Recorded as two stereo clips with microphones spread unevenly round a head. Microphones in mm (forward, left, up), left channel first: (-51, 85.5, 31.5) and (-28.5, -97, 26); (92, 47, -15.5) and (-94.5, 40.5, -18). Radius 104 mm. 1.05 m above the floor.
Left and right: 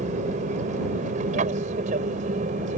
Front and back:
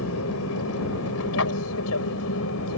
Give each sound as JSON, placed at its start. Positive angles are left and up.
{"t": 0.0, "sound": "an aircraft", "azimuth_deg": -25}